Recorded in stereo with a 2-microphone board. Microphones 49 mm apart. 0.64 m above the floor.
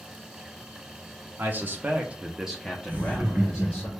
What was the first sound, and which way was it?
A man speaking, 45° right (ahead or behind).